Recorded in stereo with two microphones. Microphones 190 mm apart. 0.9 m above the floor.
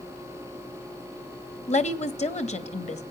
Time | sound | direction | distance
1.7 | a woman speaking | 35° left (ahead or behind) | 1.2 m